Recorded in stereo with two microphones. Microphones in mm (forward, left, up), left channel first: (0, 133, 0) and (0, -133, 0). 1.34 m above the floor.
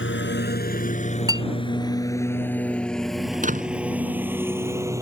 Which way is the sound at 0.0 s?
45° left (ahead or behind).